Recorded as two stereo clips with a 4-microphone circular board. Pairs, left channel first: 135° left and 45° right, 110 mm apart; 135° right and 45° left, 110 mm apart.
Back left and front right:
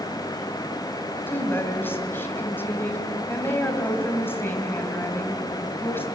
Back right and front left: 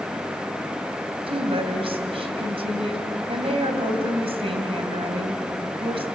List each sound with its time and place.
1.3 s a woman speaking: 65° left, 2.5 m